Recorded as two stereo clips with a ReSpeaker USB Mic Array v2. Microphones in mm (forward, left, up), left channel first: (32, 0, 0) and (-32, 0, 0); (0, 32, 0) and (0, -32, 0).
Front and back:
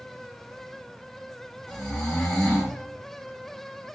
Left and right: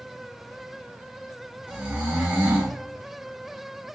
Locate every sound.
1.7 s snoring: 75° right, 0.9 m